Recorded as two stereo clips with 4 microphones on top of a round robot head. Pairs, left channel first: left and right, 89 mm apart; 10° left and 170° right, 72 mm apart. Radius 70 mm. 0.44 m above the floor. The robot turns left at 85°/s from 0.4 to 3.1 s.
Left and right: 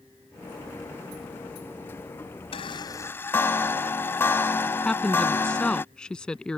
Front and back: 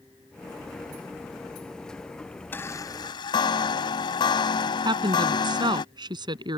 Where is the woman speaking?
170° left.